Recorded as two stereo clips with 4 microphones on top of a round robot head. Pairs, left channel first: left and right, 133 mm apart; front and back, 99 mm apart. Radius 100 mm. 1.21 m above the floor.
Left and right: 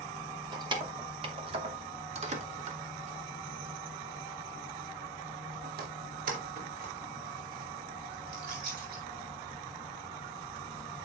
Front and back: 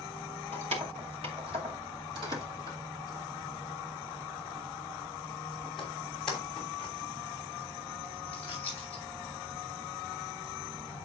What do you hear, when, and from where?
0.5 s keys jangling: 150° right, 2.5 m; by 9.0 s 75° right, 4.5 m